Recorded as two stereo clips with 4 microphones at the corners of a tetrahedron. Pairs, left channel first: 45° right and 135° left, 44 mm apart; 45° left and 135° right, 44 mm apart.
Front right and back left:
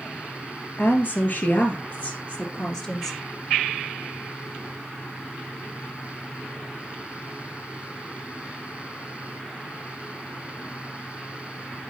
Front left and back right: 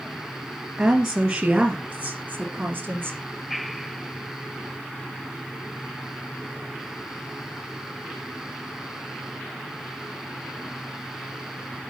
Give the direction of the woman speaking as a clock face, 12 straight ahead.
2 o'clock.